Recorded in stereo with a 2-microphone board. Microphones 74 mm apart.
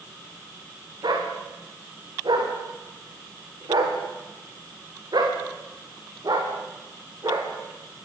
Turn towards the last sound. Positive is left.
turn(degrees=-55)  # may be behind; listen again after turning